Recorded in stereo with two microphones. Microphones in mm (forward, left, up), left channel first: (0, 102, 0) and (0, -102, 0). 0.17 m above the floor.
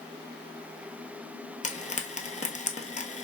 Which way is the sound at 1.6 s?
40° left (ahead or behind).